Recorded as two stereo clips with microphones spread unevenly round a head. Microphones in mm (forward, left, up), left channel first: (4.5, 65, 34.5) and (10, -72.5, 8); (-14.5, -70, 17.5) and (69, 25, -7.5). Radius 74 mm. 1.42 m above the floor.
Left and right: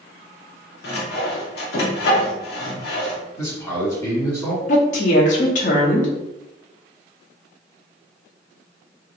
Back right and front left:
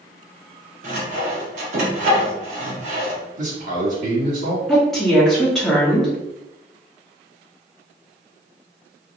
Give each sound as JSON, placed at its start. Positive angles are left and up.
{"t": 0.8, "sound": "sawing", "azimuth_deg": 75, "distance_m": 0.9}
{"t": 3.4, "sound": "a man speaking", "azimuth_deg": 20, "distance_m": 1.9}
{"t": 4.7, "sound": "a woman speaking", "azimuth_deg": 135, "distance_m": 0.8}